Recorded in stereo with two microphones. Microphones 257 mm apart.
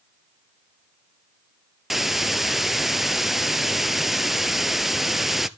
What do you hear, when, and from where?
1.9 s a hiss: centre (ahead or behind), 0.6 m